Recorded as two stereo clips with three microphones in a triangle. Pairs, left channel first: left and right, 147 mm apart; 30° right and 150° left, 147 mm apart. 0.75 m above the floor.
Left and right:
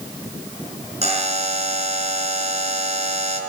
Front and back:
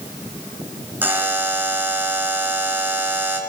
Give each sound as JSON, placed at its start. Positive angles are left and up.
{"t": 1.0, "sound": "a buzzer", "azimuth_deg": -135, "distance_m": 4.5}